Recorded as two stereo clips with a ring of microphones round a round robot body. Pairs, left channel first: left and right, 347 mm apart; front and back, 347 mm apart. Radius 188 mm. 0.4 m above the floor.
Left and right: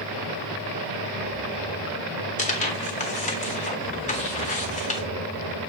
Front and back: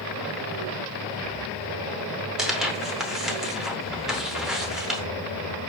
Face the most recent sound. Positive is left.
turn(degrees=95)